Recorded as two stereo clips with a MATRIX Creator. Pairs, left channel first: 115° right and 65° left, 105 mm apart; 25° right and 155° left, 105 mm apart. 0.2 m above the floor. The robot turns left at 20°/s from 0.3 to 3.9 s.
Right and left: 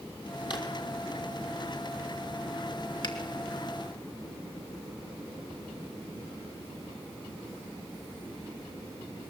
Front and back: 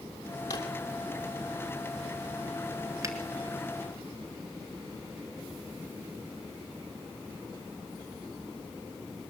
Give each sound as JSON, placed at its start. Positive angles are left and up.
{"t": 0.5, "sound": "a drawer", "azimuth_deg": -70, "distance_m": 3.0}
{"t": 3.0, "sound": "a finger snap", "azimuth_deg": -150, "distance_m": 2.5}